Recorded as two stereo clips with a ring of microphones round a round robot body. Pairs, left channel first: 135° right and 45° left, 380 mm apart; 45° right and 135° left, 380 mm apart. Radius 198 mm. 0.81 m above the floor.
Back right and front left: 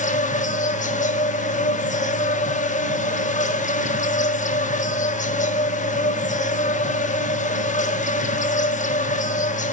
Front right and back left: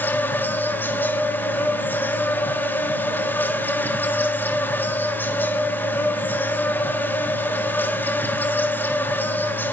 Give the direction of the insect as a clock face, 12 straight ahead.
4 o'clock.